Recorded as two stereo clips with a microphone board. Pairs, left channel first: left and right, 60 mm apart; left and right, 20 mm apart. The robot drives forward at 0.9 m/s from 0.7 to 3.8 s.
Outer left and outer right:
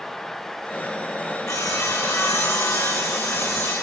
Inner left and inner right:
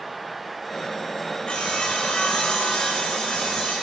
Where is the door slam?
No door slam in this recording.